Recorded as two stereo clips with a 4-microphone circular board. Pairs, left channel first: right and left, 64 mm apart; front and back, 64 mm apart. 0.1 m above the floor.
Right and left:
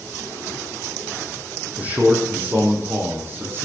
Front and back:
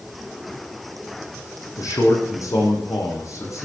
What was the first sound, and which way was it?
A man speaking, 25° left.